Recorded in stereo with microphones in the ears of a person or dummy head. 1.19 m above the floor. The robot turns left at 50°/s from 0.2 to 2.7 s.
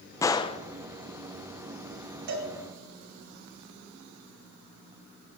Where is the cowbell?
55° right (ahead or behind), 2.5 m; by 2.5 s 45° right (ahead or behind), 2.5 m.